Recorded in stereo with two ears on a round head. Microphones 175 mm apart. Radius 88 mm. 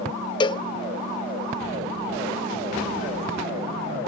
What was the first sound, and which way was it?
A cowbell, 25° left (ahead or behind).